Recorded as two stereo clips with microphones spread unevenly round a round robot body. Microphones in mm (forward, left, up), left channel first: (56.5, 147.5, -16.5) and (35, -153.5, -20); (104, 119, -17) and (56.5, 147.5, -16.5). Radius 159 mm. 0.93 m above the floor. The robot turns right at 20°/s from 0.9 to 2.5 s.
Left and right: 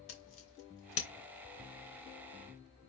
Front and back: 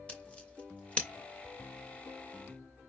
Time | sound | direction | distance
0.1 | scissors | 40° left | 3 m